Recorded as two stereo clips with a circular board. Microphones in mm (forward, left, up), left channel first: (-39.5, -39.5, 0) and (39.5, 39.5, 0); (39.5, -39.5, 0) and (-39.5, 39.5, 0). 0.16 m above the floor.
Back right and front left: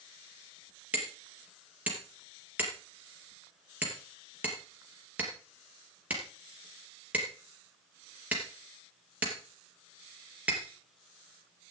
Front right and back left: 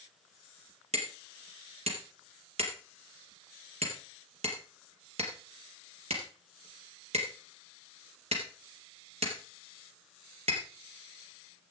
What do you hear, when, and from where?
0.9 s hammering: 120° left, 3.5 m